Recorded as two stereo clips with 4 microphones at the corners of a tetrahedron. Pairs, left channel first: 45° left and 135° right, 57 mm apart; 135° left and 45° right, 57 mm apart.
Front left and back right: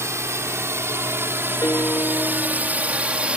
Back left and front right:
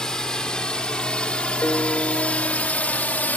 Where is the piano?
90° left.